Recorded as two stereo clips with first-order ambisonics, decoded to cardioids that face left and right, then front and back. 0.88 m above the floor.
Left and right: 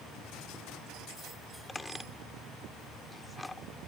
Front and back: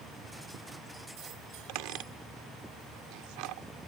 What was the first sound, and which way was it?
A squeak, 170° left.